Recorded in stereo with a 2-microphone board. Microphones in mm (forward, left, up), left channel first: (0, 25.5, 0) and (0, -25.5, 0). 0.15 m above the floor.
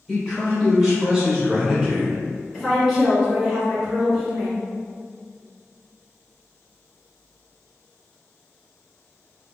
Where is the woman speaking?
5° right (ahead or behind), 1.6 m.